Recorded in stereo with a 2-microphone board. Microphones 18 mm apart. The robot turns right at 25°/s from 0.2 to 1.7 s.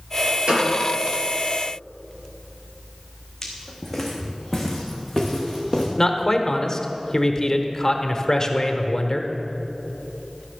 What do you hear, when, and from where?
0.5 s a gunshot: 60° right (ahead or behind), 3.5 m; by 0.7 s 55° right (ahead or behind), 3.5 m
3.4 s footsteps: 10° left (ahead or behind), 2 m; by 5.9 s 25° right (ahead or behind), 3 m
6.0 s a man speaking: 25° left (ahead or behind), 1.0 m